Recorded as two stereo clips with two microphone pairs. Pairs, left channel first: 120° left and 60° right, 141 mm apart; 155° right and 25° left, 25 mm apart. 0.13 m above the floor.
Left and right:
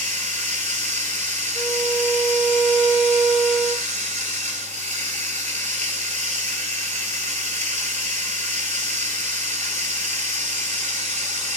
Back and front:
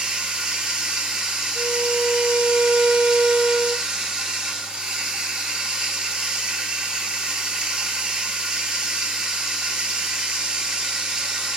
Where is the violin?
15° right, 0.9 m.